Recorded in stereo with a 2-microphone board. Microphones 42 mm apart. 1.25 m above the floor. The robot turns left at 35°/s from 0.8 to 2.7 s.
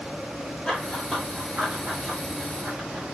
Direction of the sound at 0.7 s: 10° left (ahead or behind).